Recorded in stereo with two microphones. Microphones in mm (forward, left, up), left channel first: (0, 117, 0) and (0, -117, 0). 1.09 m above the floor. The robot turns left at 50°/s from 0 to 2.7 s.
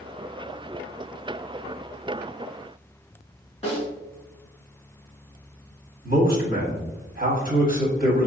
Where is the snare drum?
30° left (ahead or behind), 1.7 m.